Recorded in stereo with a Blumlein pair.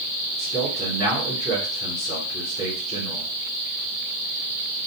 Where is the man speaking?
30° left, 2 m.